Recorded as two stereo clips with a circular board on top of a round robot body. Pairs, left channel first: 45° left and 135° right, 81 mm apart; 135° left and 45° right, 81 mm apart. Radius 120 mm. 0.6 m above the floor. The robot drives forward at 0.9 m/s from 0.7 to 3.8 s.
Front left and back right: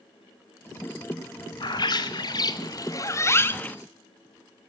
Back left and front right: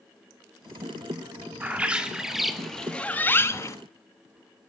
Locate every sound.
1.6 s a bird: 25° left, 2 m; by 3.8 s 110° left, 1.3 m